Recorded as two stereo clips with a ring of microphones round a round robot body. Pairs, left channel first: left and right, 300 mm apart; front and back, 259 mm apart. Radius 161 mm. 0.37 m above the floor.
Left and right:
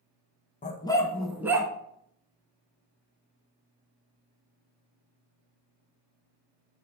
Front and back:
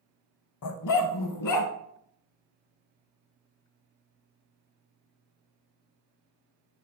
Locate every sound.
0.6 s a dog barking: 20° left, 0.7 m; by 1.7 s 10° right, 1.1 m